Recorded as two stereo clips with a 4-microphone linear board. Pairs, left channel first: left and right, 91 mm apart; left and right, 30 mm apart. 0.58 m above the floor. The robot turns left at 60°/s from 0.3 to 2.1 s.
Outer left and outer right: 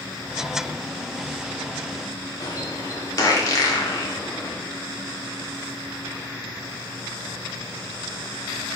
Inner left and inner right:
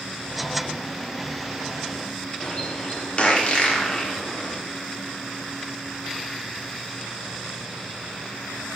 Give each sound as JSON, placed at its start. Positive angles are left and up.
{"t": 2.4, "sound": "a bird", "side_deg": 45, "distance_m": 1.7}